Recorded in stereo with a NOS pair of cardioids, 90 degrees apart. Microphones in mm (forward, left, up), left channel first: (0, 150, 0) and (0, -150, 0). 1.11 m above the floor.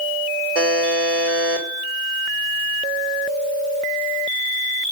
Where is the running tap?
No running tap in this recording.